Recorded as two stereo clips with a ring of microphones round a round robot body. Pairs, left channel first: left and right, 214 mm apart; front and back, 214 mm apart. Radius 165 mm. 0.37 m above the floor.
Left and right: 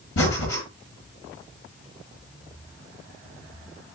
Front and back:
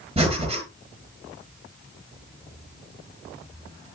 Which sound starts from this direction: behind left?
Breathing, at 0.2 s.